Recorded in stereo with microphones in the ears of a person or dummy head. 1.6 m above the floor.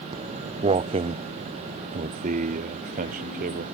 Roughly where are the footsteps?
Right.